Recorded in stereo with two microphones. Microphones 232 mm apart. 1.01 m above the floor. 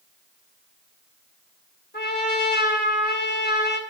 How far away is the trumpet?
About 2.5 m.